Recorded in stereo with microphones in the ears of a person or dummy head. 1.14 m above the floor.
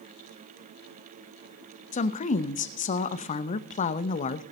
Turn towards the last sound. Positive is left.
turn(degrees=35)  # may be behind; listen again after turning